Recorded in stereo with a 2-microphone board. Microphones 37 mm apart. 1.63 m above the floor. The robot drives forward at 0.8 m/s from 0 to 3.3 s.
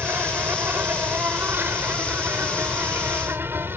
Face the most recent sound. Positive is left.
turn(degrees=-85)